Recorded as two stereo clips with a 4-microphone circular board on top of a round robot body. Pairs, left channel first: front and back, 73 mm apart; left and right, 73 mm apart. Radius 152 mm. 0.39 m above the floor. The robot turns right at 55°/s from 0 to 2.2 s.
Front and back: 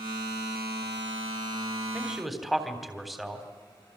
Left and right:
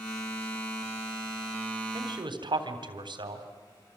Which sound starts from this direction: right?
A man speaking, at 1.9 s.